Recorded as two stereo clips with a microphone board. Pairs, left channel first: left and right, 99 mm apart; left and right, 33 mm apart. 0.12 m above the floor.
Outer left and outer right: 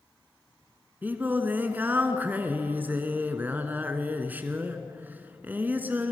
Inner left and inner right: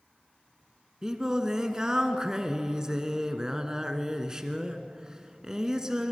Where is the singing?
20° right (ahead or behind), 1.3 m.